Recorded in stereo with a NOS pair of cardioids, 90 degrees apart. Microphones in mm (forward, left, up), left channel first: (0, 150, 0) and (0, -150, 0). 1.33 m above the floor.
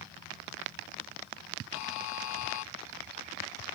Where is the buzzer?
70° left.